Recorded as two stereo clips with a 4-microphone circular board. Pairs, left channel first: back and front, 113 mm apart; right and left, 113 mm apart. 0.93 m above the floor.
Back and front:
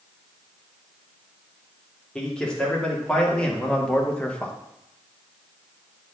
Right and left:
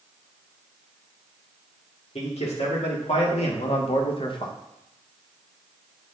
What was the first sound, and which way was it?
A man speaking, 95° right.